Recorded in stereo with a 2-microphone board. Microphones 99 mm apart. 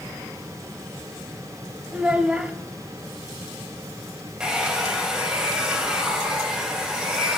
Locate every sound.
1.9 s a child speaking: 10° right (ahead or behind), 0.5 m
4.4 s a hair dryer: 10° right (ahead or behind), 1.4 m